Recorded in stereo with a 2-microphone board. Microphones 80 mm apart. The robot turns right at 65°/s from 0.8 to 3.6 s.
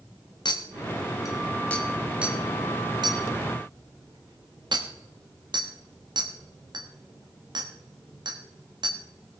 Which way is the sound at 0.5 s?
65° left (ahead or behind).